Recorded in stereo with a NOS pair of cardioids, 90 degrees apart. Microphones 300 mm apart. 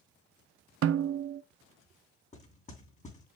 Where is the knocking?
25° left, 6 m.